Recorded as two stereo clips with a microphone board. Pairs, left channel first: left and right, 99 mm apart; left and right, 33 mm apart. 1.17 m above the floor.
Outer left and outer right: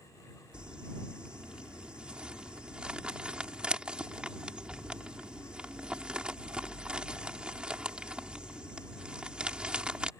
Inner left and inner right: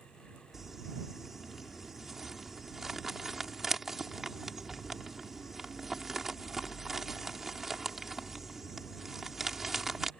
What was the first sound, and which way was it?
Crumpling, 10° right (ahead or behind).